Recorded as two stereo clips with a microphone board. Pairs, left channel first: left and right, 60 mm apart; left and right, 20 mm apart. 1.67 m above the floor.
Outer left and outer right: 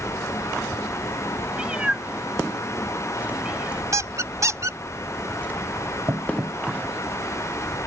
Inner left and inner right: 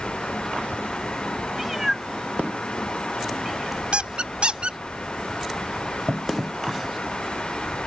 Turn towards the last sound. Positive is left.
turn(degrees=-50)  # may be behind; listen again after turning